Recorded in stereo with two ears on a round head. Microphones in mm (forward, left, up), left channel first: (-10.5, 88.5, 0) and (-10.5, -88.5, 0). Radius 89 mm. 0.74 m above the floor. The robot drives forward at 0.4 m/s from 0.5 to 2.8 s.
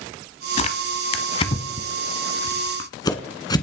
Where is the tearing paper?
35° left (ahead or behind), 1.2 m; by 3.6 s 20° left (ahead or behind), 2.0 m.